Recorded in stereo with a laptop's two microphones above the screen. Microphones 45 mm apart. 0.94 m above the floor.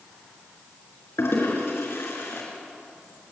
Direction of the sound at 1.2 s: 75° left (ahead or behind).